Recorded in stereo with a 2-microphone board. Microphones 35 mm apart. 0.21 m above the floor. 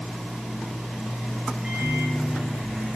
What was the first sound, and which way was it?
A microwave, 35° right (ahead or behind).